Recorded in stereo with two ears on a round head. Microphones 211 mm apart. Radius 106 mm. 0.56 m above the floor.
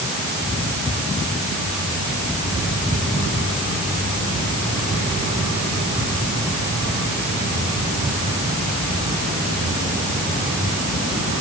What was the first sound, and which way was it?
Only background noise.